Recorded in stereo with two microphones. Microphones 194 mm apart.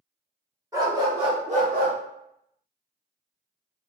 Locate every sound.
0.7 s a dog barking: 15° right (ahead or behind), 1.4 m; by 2.0 s 55° right (ahead or behind), 0.7 m